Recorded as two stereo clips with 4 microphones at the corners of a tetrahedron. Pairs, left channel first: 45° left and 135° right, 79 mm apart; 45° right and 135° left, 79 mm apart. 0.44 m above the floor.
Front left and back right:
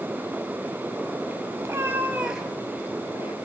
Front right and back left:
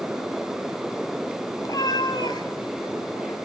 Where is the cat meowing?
80° right, 1.4 m; by 3.4 s 5° left, 0.9 m.